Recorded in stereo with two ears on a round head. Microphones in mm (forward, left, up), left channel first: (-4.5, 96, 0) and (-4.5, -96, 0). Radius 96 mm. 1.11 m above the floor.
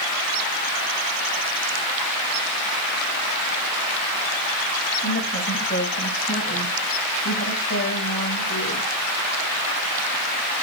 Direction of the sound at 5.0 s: 25° left (ahead or behind).